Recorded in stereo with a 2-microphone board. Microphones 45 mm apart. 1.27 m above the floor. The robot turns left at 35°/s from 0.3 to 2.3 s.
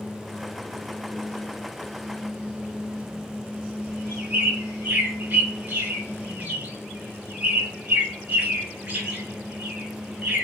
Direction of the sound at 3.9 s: 40° right (ahead or behind).